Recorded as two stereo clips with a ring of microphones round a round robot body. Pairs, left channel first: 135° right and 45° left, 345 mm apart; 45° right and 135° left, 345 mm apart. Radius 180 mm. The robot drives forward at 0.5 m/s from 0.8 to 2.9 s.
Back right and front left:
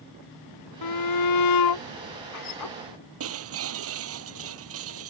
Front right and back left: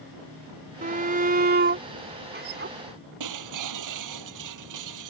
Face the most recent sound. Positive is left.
turn(degrees=95)